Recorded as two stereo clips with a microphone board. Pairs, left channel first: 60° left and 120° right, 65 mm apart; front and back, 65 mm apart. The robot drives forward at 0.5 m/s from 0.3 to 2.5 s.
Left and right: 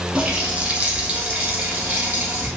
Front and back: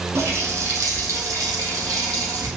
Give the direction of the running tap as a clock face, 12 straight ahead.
6 o'clock.